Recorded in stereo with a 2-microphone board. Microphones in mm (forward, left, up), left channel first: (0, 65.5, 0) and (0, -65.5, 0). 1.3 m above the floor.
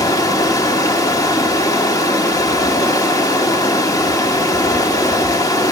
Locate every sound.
0.0 s running water: 25° left (ahead or behind), 1.6 m